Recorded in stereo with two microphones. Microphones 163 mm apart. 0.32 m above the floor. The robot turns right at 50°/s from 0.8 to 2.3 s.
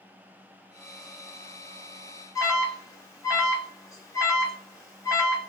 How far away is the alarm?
About 0.8 m.